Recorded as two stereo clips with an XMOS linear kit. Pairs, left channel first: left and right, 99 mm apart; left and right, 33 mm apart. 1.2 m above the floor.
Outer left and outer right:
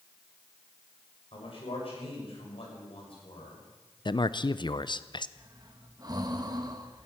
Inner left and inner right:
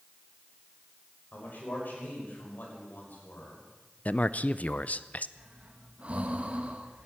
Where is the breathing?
40° right (ahead or behind), 1.4 m.